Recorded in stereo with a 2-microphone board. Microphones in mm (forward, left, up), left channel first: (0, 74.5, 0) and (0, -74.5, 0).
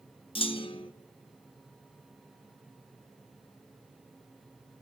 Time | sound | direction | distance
0.3 | a clunk | 35° left (ahead or behind) | 0.7 m